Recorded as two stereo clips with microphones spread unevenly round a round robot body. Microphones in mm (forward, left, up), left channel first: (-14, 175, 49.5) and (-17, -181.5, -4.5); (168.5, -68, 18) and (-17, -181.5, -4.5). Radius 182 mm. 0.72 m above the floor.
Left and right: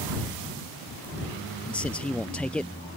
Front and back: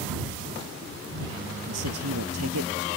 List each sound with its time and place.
1.6 s a man speaking: 175° left